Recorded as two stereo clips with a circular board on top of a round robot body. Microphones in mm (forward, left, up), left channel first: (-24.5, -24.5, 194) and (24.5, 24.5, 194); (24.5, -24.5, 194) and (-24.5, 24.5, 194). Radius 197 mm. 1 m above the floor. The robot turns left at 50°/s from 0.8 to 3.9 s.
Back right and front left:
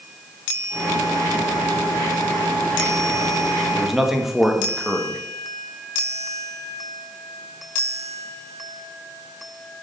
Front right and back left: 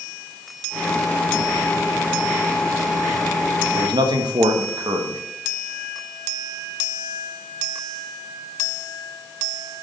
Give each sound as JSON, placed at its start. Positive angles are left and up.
{"t": 3.8, "sound": "a man speaking", "azimuth_deg": 140, "distance_m": 1.3}